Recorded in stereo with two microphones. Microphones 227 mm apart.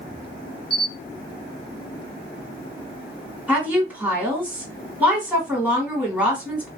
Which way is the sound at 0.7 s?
25° left (ahead or behind).